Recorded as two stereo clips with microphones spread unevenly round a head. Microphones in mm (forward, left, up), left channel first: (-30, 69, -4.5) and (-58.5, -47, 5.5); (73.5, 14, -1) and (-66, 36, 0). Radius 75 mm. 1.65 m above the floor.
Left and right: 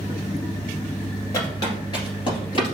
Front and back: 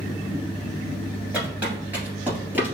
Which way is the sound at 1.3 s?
105° left.